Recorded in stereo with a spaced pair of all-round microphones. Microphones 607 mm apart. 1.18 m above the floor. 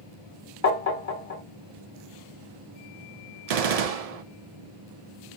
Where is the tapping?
75° left (ahead or behind), 0.9 m.